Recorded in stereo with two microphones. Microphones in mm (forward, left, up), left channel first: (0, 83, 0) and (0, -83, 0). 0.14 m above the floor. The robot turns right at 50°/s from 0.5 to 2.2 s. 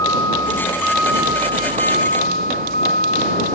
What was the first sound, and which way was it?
A vehicle, 160° left.